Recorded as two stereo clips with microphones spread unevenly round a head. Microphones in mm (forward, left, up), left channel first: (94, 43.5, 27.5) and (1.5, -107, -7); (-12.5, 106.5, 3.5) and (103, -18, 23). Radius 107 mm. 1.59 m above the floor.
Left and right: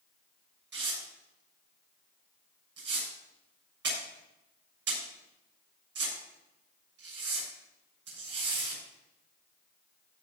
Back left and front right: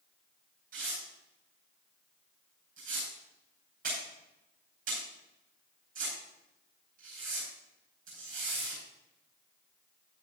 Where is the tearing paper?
100° right, 7 m.